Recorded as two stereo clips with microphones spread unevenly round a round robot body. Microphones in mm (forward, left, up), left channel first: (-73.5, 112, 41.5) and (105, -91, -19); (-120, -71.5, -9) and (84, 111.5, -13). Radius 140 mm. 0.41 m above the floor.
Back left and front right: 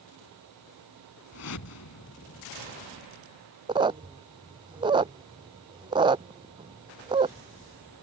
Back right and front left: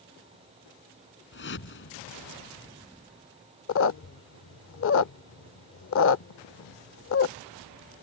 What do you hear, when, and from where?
1.3 s a whoosh: 175° left
3.7 s a squeak: 105° right